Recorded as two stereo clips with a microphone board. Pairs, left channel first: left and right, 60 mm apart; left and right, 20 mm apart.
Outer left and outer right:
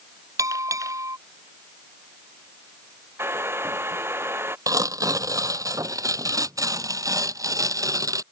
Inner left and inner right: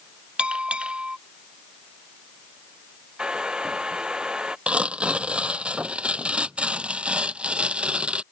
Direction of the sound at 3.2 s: 40° right (ahead or behind).